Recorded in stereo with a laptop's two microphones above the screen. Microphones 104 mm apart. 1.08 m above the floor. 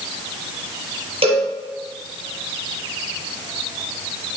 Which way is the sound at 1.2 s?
70° right (ahead or behind).